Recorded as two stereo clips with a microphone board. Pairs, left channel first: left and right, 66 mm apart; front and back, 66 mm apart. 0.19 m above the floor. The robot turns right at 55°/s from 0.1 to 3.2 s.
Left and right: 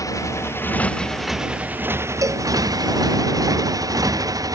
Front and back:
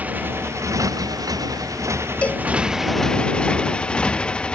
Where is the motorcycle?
115° left; by 4.5 s 75° right.